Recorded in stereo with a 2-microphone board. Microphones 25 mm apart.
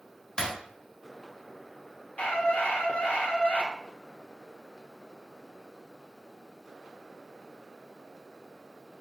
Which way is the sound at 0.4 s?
30° left (ahead or behind).